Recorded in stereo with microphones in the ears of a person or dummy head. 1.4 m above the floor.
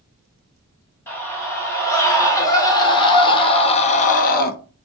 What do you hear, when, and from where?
1.1 s a scream: 10° left (ahead or behind), 1.9 m; by 4.5 s 45° left (ahead or behind), 0.5 m